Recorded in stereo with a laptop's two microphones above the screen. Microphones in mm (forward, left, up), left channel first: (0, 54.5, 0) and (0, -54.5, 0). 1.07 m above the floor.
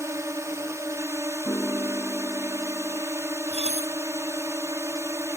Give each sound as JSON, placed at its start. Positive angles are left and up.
{"t": 0.0, "sound": "a drone", "side_deg": -25}
{"t": 1.4, "sound": "a piano", "side_deg": 30}
{"t": 3.5, "sound": "dishes clattering", "side_deg": -80}